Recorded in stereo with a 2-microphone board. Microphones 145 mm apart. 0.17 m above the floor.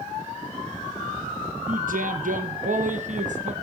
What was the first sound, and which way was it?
A man speaking, 70° right (ahead or behind).